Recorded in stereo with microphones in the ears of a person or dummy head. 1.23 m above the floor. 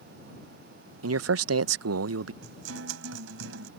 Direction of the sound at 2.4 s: 75° right (ahead or behind).